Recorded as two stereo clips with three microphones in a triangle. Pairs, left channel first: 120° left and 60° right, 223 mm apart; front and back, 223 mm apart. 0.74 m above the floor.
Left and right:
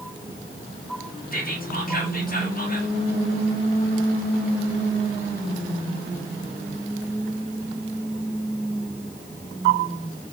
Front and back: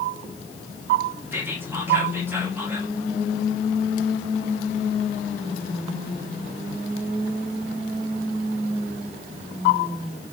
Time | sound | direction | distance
1.3 | whispering | 105° left | 1.3 m